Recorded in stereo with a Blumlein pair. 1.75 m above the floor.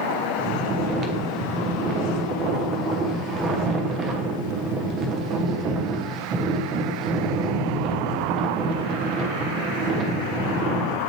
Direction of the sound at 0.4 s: 25° right.